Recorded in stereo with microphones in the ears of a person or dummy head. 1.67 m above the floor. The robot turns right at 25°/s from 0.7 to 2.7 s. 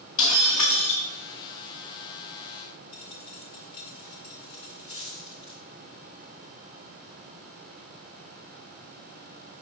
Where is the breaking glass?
35° left (ahead or behind), 4 m; by 1.0 s 40° left (ahead or behind), 4 m.